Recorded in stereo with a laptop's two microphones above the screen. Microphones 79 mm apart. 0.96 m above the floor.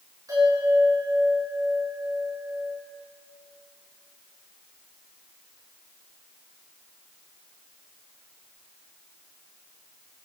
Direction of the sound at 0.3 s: 50° right (ahead or behind).